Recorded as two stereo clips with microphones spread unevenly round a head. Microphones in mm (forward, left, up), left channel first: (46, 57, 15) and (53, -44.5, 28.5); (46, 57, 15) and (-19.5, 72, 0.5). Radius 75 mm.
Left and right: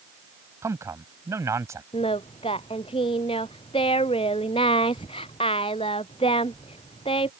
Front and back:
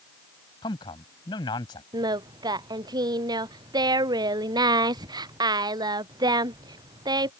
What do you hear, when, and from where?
0.6 s a man speaking: 25° right
1.9 s singing: 150° left